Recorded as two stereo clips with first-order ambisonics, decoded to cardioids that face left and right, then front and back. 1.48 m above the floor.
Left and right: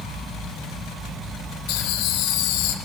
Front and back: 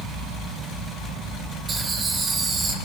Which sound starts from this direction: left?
Laughter, at 1.7 s.